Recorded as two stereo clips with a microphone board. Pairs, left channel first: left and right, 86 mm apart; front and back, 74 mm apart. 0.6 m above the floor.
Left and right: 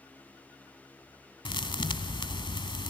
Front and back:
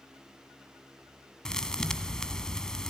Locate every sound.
1.4 s a thud: 80° left, 1.1 m